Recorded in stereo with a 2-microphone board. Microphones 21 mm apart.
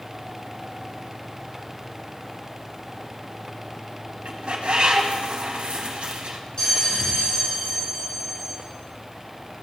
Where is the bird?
80° right, 1.1 m.